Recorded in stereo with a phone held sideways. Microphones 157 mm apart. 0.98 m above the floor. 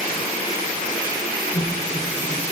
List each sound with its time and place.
1.5 s laughter: 50° left (ahead or behind), 5.5 m